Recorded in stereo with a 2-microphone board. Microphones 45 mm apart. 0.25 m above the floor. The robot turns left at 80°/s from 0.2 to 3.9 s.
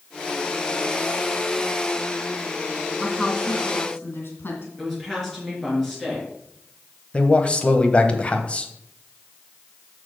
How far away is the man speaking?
About 1.0 m.